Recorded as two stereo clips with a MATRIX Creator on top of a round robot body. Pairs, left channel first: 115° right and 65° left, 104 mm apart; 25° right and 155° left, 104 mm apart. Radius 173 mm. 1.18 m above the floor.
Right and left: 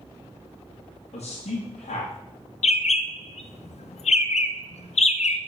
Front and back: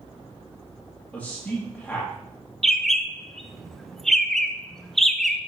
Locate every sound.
1.1 s a man speaking: 105° right, 1.9 m
2.6 s a bird: 110° right, 0.7 m